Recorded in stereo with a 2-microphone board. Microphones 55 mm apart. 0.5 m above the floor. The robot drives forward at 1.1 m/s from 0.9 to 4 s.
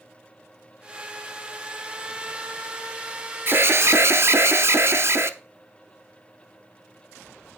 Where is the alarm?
40° right (ahead or behind), 0.9 m; by 5.3 s 50° right (ahead or behind), 0.8 m.